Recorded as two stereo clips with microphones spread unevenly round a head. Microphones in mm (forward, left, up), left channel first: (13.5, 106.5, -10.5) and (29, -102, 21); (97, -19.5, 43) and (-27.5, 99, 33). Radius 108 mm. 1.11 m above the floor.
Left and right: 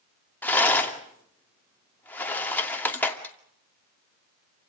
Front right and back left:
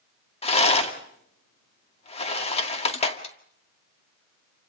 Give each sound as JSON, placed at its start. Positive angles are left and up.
{"t": 0.4, "sound": "a rattle", "azimuth_deg": 10, "distance_m": 2.5}